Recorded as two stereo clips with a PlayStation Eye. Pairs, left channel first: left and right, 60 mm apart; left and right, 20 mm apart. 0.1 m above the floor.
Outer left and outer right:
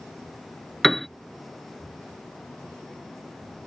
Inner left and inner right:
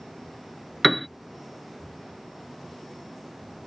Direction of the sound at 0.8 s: 5° left (ahead or behind).